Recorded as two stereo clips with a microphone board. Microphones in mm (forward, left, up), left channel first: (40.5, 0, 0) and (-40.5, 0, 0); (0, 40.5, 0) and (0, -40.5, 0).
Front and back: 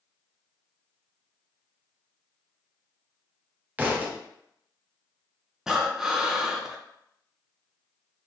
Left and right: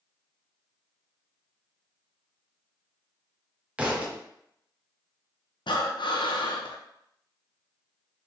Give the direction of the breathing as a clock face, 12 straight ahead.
9 o'clock.